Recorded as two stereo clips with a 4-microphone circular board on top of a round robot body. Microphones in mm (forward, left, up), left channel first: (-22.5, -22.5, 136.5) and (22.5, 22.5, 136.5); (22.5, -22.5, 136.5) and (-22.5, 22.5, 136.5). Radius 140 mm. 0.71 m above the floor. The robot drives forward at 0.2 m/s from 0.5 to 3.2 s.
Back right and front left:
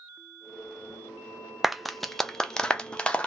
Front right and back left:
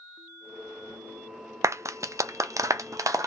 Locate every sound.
1.6 s a clap: 130° left, 0.5 m; by 3.3 s 155° left, 0.7 m